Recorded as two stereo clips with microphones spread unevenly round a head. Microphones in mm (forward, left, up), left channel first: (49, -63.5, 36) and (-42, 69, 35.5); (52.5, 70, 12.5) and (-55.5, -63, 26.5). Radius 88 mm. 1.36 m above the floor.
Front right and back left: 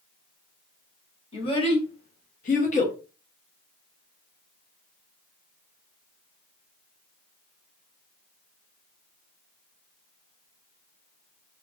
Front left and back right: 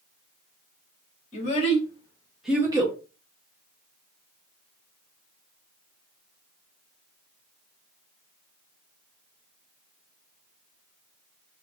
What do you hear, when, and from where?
1.3 s a child speaking: straight ahead, 1.4 m; by 3.0 s 95° right, 0.9 m